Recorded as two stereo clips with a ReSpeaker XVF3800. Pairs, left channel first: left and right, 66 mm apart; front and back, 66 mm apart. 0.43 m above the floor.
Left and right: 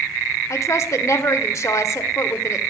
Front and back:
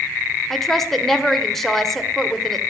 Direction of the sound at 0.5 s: 85° left.